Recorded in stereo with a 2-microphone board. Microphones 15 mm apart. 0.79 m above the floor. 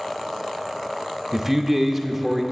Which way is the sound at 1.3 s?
15° right (ahead or behind).